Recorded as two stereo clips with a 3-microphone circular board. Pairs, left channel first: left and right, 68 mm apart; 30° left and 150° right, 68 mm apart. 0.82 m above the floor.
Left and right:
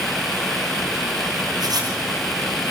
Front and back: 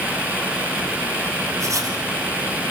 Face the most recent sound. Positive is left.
turn(degrees=-115)